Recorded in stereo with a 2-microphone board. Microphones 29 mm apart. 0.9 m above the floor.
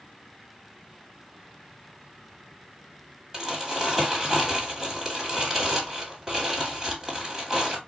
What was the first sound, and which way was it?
Crumpling, 20° right (ahead or behind).